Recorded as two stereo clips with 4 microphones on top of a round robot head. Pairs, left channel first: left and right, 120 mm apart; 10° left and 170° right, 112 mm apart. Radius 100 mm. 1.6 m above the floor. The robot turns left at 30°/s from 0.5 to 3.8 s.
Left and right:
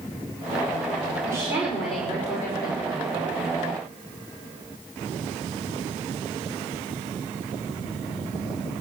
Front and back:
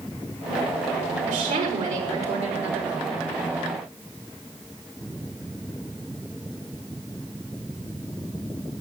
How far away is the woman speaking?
About 5.5 m.